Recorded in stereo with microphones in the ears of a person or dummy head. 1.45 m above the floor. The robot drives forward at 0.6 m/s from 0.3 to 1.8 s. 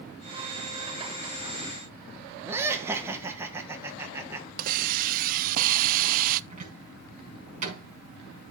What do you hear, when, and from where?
2.5 s laughter: 25° right (ahead or behind), 1.5 m
4.6 s a hiss: 55° right (ahead or behind), 0.6 m
6.5 s a cupboard door: 50° right (ahead or behind), 5.5 m